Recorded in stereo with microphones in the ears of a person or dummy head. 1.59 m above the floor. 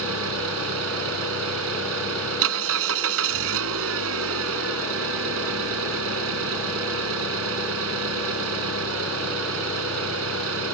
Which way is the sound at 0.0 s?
70° right (ahead or behind).